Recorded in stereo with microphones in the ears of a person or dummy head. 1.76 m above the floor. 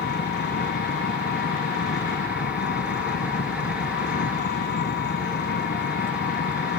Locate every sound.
0.0 s an engine running: 55° left (ahead or behind)